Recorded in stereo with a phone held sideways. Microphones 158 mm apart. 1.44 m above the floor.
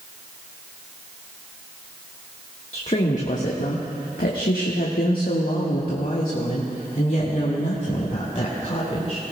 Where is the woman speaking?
45° left (ahead or behind), 1.6 m; by 9.2 s 40° left (ahead or behind), 3 m.